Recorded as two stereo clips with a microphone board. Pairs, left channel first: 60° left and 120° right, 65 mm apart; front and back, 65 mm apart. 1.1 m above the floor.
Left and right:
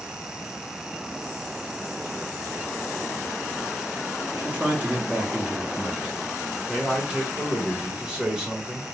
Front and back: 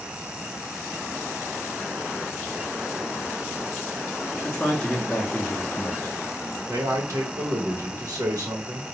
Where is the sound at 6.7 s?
165° left, 1.1 m.